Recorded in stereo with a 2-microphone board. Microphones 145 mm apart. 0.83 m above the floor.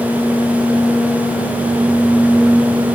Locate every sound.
Only background noise.